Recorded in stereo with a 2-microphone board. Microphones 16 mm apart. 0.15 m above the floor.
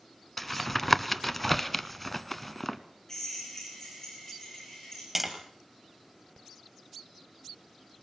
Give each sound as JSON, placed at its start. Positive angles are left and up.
{"t": 0.4, "sound": "tapping", "side_deg": 10, "distance_m": 0.9}
{"t": 3.1, "sound": "a drill", "side_deg": 25, "distance_m": 6.5}
{"t": 5.2, "sound": "tapping", "side_deg": -10, "distance_m": 2.5}